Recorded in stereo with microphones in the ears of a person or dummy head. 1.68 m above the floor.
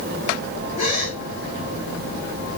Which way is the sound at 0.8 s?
45° left (ahead or behind).